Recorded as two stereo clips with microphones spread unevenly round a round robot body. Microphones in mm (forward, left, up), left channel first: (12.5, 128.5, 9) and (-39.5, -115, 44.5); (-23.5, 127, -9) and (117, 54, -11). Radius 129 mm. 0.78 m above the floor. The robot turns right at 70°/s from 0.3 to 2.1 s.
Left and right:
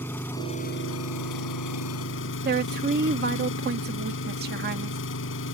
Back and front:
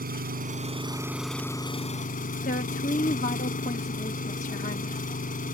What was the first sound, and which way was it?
An engine running, 5° right.